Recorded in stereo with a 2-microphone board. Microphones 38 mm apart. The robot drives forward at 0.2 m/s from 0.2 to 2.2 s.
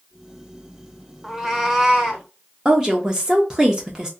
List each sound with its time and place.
1.2 s a cat meowing: 10° right (ahead or behind), 0.5 m
2.6 s a woman speaking: 15° right (ahead or behind), 0.5 m